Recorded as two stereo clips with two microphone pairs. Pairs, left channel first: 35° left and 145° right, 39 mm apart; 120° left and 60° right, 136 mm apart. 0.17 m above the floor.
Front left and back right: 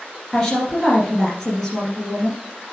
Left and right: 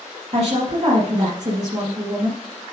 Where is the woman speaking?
45° right, 2.5 m.